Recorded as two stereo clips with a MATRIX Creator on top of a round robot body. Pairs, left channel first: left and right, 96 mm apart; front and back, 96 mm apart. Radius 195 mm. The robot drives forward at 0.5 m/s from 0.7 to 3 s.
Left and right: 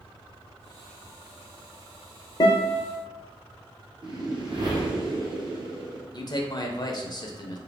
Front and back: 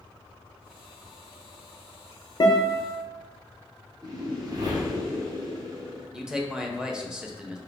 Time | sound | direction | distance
2.4 | a guitar | 45° left | 0.7 m
4.0 | a whoosh | 130° right | 1.0 m
6.1 | a man speaking | 100° left | 0.9 m